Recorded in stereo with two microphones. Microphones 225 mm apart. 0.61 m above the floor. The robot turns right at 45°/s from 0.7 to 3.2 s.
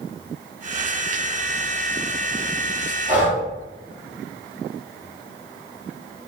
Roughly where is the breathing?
Right.